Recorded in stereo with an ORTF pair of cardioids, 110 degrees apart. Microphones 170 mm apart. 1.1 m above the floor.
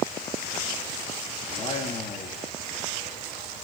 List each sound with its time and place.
1.5 s a man speaking: 35° left, 2 m